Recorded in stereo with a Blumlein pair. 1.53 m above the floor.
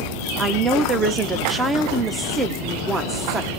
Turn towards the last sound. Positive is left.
turn(degrees=-10)